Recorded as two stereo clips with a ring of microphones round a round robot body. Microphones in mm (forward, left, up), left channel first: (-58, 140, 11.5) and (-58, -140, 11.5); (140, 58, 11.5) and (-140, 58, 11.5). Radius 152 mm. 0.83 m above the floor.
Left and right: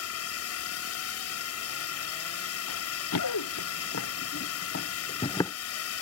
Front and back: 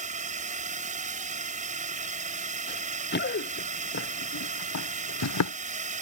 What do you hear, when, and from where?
0.0 s a drone: 120° left
2.7 s running footsteps: 55° left; by 5.5 s 5° left